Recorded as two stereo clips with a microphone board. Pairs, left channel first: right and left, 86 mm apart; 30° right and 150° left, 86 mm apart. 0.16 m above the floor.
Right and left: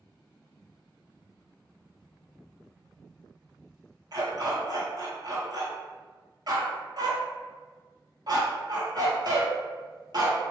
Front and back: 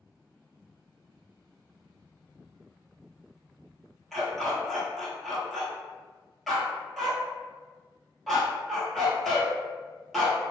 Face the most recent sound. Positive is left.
turn(degrees=60)